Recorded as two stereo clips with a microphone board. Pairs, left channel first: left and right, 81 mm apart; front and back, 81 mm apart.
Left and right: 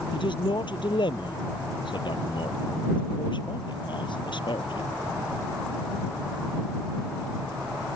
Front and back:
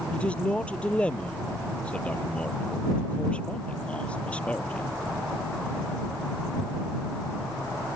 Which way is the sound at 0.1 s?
75° left.